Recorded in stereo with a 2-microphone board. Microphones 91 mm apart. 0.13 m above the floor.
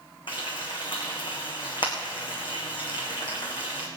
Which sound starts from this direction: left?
Frying, at 0.3 s.